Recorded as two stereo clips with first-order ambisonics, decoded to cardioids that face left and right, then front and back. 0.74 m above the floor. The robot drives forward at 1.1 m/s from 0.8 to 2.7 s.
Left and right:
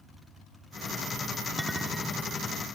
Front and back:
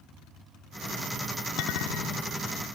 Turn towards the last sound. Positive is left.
turn(degrees=0)